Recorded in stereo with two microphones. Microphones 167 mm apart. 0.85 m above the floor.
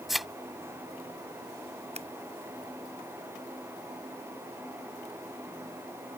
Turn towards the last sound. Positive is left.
turn(degrees=-40)  # may be behind; listen again after turning